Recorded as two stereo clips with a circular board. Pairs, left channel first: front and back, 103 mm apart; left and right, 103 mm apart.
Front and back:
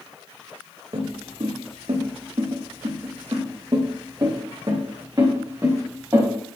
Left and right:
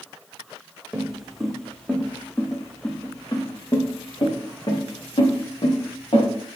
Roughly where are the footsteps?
Behind.